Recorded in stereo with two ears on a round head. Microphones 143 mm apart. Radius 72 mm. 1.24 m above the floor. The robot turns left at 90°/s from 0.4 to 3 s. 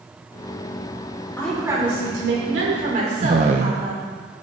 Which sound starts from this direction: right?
A man speaking, at 3.2 s.